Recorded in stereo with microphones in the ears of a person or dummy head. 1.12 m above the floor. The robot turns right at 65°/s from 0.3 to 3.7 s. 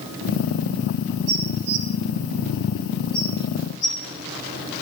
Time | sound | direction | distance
1.3 | dishes clattering | 65° right (ahead or behind) | 2.5 m